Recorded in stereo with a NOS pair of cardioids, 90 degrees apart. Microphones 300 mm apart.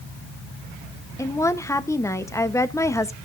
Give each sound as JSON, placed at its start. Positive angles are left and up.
{"t": 1.2, "sound": "a woman speaking", "azimuth_deg": 10, "distance_m": 1.1}